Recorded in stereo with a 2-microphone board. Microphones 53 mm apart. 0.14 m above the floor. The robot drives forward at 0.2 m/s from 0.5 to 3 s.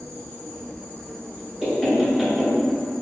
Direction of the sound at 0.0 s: 60° right (ahead or behind).